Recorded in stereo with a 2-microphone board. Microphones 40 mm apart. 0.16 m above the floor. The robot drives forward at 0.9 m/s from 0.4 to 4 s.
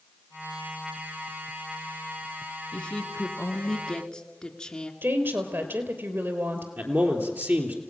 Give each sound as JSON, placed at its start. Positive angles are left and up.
{"t": 2.7, "sound": "a woman speaking", "side_deg": 30, "distance_m": 1.6}
{"t": 5.0, "sound": "a woman speaking", "side_deg": -65, "distance_m": 3.0}
{"t": 6.8, "sound": "a man speaking", "side_deg": -50, "distance_m": 3.5}